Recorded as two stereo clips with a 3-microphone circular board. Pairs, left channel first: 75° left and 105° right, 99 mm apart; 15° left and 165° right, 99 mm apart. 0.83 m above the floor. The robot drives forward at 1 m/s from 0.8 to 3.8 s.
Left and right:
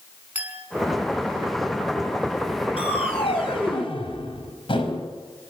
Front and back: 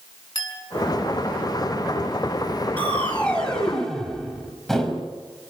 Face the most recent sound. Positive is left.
turn(degrees=100)